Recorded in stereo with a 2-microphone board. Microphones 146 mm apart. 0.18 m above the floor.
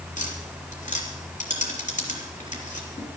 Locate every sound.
0.2 s tapping: 65° left (ahead or behind), 4 m